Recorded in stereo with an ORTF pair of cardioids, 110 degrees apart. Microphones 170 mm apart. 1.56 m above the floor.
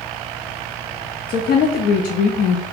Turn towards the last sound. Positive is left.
turn(degrees=60)